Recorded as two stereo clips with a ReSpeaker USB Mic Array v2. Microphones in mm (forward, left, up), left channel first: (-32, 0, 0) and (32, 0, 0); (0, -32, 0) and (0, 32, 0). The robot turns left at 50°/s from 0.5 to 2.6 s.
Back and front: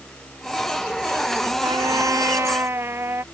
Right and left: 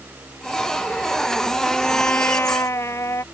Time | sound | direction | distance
1.6 | a trumpet | straight ahead | ?